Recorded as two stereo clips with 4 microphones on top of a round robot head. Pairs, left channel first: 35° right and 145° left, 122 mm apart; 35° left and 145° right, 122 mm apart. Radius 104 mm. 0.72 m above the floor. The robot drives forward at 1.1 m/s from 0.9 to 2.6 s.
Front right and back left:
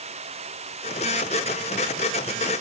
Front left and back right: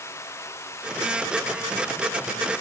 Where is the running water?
105° left; by 2.6 s 110° left.